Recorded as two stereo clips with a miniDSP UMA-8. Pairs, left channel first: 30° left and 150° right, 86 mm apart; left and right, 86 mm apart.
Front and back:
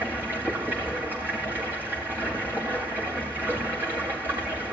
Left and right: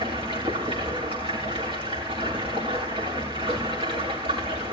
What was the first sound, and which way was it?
Running water, 80° right.